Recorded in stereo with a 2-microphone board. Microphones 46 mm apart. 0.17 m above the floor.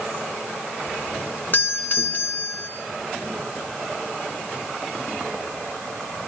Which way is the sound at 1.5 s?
45° left (ahead or behind).